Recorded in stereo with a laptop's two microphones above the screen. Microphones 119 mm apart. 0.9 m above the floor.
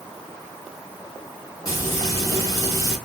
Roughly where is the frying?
Left.